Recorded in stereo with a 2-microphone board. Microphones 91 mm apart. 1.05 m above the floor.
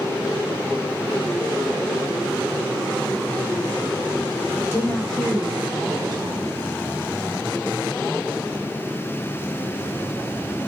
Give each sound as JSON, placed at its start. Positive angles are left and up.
{"t": 4.6, "sound": "a woman speaking", "side_deg": 30, "distance_m": 0.8}